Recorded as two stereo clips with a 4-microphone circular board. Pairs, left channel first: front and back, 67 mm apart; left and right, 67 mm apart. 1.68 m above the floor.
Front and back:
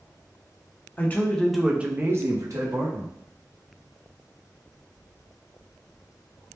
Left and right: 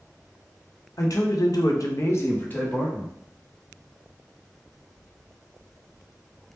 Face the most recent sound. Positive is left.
turn(degrees=165)